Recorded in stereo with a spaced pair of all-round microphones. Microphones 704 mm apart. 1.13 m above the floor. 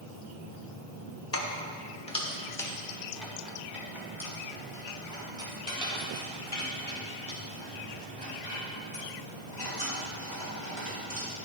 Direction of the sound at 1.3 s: 20° left (ahead or behind).